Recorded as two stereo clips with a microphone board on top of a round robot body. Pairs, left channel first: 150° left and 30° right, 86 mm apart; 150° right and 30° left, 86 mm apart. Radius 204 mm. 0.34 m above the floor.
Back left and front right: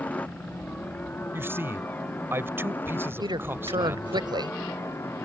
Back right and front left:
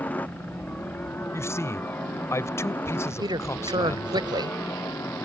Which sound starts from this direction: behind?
A helicopter, at 0.0 s.